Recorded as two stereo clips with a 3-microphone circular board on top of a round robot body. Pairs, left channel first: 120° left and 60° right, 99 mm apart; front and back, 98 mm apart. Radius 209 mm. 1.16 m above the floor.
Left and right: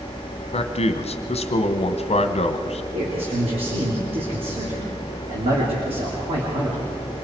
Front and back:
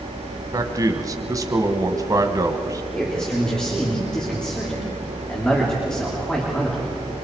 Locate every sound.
0.5 s a man speaking: 125° left, 1.2 m
2.9 s a man speaking: 85° right, 3 m